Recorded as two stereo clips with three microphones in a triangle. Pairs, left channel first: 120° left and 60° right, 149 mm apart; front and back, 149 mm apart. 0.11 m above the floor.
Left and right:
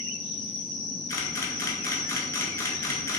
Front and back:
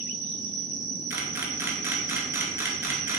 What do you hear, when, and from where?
0.0 s an insect: 65° right, 1.2 m
1.1 s a camera shutter: 140° left, 0.7 m